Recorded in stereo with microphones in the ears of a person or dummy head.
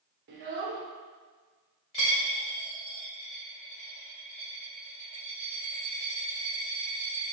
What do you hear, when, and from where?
0.3 s a child speaking: 55° right (ahead or behind), 0.9 m
1.9 s a dropped coin: 25° left (ahead or behind), 1.0 m